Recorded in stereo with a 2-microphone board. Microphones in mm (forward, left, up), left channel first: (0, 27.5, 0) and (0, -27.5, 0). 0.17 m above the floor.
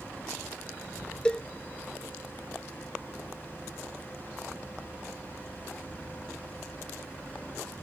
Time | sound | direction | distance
1.2 | a cowbell | 15° left (ahead or behind) | ?